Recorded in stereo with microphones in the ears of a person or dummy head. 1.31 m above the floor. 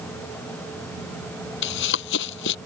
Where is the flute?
I don't hear a flute.